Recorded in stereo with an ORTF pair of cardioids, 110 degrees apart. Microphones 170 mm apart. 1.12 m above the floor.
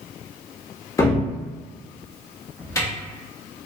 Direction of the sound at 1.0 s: 20° left.